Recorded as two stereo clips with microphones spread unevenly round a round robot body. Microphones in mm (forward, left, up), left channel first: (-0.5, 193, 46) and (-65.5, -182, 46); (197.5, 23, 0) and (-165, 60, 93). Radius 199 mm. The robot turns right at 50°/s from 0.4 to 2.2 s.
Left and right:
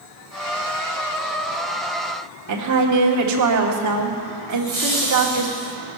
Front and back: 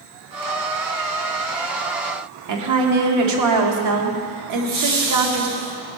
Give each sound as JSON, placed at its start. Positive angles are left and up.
{"t": 2.5, "sound": "a woman speaking", "azimuth_deg": -140, "distance_m": 1.8}
{"t": 4.5, "sound": "laughter", "azimuth_deg": 165, "distance_m": 6.5}